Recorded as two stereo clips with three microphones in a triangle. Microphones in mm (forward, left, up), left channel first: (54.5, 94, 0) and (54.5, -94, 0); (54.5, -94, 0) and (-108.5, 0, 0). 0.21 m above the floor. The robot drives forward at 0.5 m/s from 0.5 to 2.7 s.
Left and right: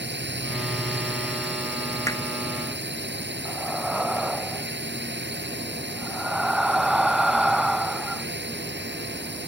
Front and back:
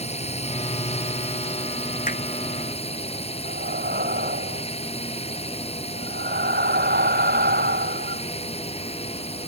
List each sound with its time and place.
0.0 s a drone: 85° right
2.1 s hammering: 15° left
3.5 s breathing: straight behind